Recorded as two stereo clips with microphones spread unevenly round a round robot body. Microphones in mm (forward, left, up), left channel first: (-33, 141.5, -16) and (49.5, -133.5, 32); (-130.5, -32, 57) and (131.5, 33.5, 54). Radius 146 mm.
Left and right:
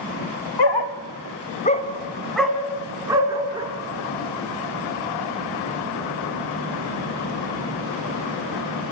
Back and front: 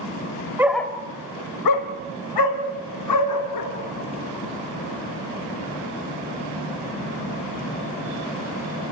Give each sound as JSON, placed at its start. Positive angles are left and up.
{"t": 0.6, "sound": "a dog barking", "azimuth_deg": 95, "distance_m": 1.4}